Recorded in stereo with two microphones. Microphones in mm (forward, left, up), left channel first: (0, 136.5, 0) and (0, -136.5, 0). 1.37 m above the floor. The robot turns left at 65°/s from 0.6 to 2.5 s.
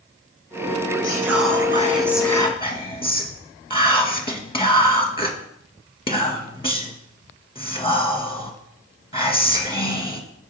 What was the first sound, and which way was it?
Whispering, 105° right.